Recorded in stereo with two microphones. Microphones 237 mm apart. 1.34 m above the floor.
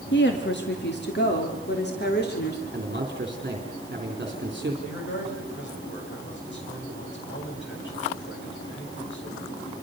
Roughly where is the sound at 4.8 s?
Left.